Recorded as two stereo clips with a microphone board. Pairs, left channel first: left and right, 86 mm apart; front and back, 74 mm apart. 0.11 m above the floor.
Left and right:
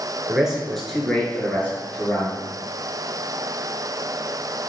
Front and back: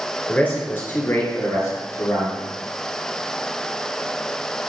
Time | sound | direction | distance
0.3 | a man speaking | 25° right | 1.3 m